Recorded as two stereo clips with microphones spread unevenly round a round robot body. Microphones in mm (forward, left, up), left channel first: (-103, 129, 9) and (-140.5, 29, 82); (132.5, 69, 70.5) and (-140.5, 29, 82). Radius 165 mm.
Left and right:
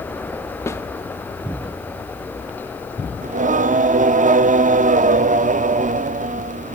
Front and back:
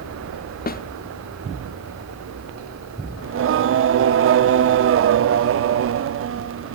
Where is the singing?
145° right, 0.6 m.